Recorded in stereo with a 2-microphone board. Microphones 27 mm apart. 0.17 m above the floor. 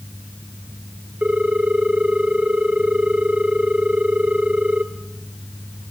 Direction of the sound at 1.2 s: 50° right (ahead or behind).